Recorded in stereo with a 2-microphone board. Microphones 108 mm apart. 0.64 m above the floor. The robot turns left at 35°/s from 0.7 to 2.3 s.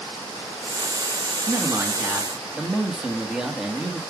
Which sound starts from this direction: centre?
A man speaking, at 1.5 s.